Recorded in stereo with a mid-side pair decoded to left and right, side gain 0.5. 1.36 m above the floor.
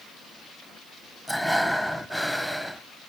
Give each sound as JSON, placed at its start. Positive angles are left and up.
{"t": 1.3, "sound": "breathing", "azimuth_deg": -5, "distance_m": 1.0}